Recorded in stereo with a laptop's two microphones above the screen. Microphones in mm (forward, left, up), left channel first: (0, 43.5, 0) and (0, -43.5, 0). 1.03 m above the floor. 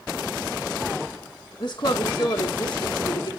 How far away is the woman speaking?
About 1.3 m.